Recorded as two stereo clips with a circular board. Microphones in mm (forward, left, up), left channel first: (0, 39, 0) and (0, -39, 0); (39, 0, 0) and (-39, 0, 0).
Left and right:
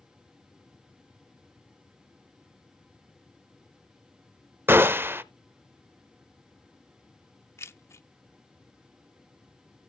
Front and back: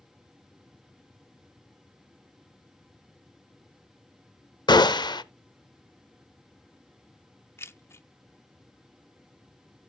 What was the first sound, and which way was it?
A gunshot, 25° right.